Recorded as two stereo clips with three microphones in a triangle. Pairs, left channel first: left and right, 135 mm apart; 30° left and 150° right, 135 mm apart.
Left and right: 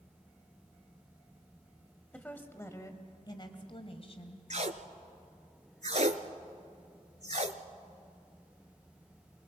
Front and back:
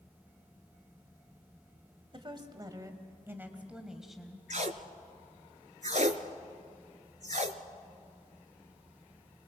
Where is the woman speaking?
170° left, 1.9 m; by 4.4 s 115° left, 2 m.